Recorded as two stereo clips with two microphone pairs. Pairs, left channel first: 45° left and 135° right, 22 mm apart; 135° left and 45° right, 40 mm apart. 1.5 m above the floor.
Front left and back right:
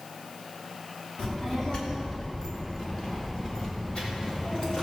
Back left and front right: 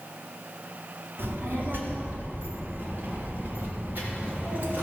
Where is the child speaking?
15° right, 3 m; by 4.8 s straight ahead, 4.5 m.